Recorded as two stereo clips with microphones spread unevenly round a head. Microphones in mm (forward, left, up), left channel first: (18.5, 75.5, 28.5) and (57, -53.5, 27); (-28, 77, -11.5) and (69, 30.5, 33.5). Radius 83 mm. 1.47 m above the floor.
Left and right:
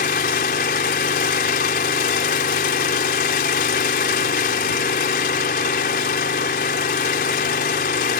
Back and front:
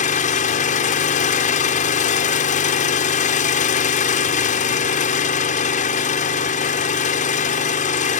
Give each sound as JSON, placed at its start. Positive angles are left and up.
{"t": 0.0, "sound": "an engine running", "azimuth_deg": 150}